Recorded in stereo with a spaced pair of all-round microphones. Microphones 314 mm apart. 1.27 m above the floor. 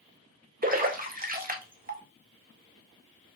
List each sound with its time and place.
0.6 s a splash: 30° right (ahead or behind), 0.7 m